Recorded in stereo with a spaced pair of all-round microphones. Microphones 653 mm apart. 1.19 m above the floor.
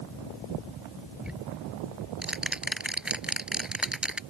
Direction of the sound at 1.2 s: Centre (ahead or behind).